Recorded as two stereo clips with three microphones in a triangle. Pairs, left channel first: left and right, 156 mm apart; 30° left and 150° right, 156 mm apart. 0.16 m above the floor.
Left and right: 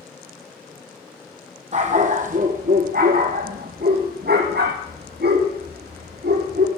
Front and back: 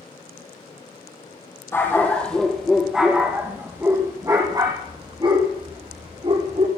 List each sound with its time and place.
1.7 s a dog barking: 45° right, 2 m; by 6.7 s 100° right, 3.5 m